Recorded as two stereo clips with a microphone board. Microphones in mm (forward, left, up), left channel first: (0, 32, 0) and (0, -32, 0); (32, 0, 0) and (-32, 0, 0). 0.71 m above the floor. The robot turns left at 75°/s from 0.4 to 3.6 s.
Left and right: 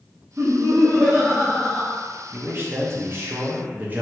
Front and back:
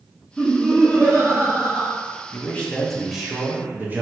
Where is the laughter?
70° right, 0.6 m; by 2.0 s 175° left, 0.6 m.